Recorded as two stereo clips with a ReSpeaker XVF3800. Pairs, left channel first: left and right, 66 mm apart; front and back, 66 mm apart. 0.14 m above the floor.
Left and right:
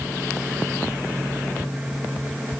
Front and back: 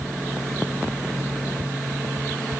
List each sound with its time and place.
Only background noise.